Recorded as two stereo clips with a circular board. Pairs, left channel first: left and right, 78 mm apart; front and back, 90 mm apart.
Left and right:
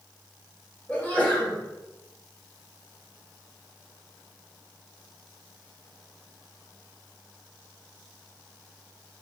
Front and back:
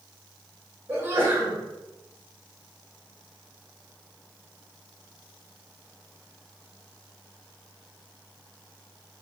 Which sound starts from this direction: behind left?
A sneeze, at 0.9 s.